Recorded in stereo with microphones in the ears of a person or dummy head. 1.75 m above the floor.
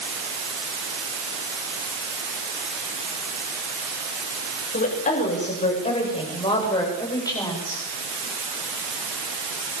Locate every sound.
4.7 s a woman speaking: 40° left (ahead or behind), 8 m; by 7.8 s 15° left (ahead or behind), 9.5 m